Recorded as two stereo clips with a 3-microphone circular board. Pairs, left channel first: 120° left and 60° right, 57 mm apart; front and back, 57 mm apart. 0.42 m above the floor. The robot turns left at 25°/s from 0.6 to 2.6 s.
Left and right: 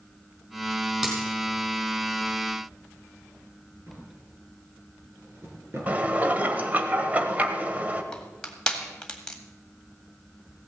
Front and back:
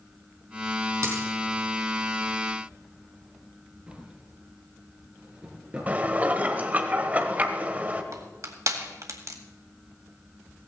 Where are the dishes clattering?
120° right, 1.2 m.